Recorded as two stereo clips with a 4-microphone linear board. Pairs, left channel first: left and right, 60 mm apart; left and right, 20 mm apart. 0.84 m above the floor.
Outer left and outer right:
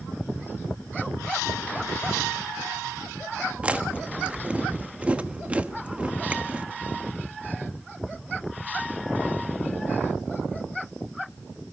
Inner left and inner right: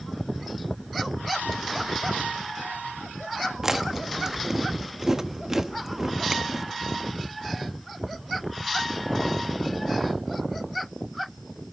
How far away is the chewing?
About 1.1 m.